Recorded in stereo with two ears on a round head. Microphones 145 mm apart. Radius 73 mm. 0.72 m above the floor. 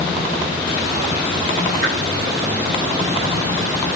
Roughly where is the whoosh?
Right.